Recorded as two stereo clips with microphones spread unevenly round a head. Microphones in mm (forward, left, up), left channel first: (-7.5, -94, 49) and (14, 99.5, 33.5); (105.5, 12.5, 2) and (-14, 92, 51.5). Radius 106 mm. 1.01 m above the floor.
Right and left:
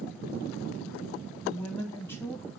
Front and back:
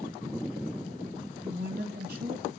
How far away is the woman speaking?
About 1.9 m.